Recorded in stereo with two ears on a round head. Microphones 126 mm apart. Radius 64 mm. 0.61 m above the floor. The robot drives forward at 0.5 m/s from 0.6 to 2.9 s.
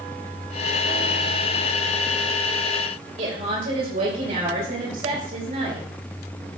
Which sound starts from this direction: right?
A woman speaking, at 3.2 s.